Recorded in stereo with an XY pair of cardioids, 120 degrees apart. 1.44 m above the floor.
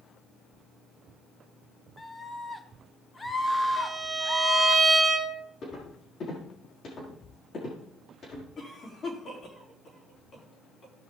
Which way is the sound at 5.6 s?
45° left.